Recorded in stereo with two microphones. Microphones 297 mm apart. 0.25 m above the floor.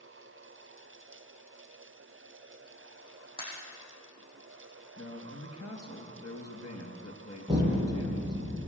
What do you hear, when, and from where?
3.4 s a pop: 15° left (ahead or behind), 7.5 m
5.0 s a man speaking: 60° left (ahead or behind), 3.5 m
7.5 s an explosion: 15° right (ahead or behind), 5 m